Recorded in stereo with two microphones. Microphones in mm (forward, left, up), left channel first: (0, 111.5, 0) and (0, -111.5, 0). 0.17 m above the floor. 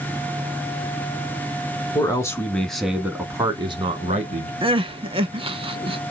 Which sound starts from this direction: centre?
A man speaking, at 1.9 s.